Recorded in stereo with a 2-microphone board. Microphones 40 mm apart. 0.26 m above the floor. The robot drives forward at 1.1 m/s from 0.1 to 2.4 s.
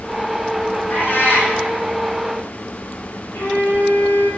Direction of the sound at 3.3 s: 80° left.